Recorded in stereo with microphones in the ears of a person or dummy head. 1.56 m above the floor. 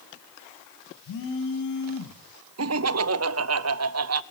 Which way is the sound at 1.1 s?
60° left (ahead or behind).